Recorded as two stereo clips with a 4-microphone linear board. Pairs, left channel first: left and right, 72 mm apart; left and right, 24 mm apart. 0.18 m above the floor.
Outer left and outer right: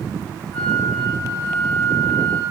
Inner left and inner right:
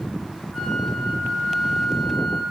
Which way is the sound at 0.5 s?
25° left (ahead or behind).